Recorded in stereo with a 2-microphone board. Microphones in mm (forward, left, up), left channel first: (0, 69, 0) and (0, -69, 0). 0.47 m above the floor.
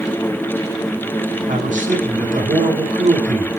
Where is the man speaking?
70° right (ahead or behind), 5 m.